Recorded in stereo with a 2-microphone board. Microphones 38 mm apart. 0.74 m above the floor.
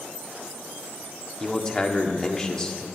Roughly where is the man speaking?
Centre.